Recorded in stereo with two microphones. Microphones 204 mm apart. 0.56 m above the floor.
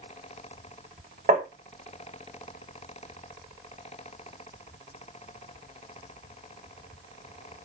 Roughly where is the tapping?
Right.